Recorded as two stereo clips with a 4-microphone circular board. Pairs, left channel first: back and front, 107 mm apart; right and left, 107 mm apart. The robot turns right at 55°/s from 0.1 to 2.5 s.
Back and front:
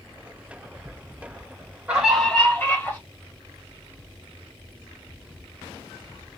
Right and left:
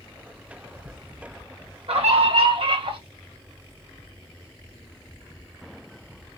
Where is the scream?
80° left, 2.5 m; by 3.0 s 115° left, 2.5 m.